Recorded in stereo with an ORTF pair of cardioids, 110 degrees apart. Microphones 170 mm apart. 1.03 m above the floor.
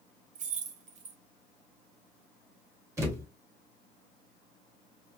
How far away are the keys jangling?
About 0.9 m.